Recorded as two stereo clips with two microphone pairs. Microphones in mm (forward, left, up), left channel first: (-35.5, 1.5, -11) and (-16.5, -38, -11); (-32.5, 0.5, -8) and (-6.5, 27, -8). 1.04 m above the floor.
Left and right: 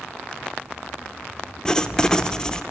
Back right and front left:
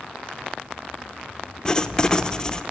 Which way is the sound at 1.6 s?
175° left.